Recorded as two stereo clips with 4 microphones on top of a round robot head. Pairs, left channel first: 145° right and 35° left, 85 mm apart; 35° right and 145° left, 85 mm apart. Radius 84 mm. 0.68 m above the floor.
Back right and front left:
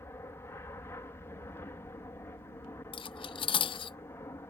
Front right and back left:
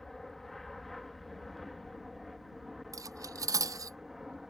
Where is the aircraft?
120° right; by 4.5 s 130° right.